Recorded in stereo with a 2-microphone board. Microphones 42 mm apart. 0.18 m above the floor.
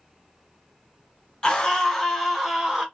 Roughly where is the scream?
Left.